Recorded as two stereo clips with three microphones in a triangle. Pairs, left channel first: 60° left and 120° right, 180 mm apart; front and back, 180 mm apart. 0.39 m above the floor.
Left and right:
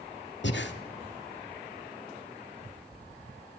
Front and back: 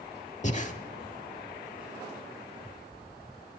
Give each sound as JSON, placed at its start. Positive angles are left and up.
{"t": 0.4, "sound": "breathing", "azimuth_deg": 50, "distance_m": 0.6}